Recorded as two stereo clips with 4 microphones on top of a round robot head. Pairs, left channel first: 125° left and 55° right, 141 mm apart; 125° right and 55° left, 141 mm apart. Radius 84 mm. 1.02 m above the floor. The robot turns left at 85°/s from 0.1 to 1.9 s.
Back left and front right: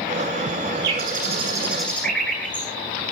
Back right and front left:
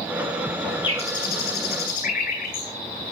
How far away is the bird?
About 9.5 m.